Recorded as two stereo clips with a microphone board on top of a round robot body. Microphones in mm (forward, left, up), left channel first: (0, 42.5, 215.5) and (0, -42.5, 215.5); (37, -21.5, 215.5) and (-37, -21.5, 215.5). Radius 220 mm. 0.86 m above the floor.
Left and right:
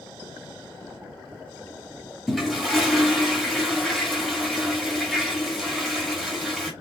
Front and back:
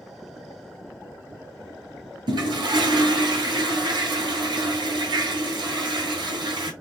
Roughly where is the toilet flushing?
Behind.